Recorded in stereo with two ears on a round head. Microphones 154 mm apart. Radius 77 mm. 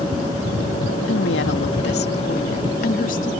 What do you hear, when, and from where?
1.1 s a woman speaking: 85° left; by 3.3 s 50° left (ahead or behind)